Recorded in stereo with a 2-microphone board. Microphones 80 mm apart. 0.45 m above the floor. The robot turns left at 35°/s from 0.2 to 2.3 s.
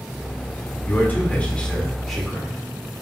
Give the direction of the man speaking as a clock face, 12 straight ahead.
10 o'clock.